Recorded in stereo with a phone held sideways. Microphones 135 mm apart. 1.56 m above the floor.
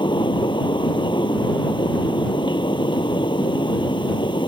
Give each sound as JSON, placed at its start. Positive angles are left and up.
{"t": 0.0, "sound": "a fan", "side_deg": 35}